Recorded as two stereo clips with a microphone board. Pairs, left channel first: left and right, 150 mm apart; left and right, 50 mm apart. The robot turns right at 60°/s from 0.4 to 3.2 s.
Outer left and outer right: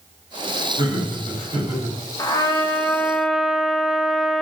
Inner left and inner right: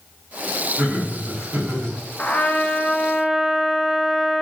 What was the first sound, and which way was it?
Laughter, 140° right.